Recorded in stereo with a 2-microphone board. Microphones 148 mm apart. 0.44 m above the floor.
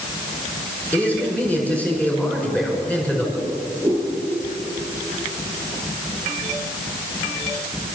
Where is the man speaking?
10° left (ahead or behind), 6 m.